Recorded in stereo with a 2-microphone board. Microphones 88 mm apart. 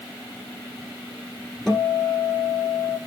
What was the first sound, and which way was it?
A guitar, 5° left (ahead or behind).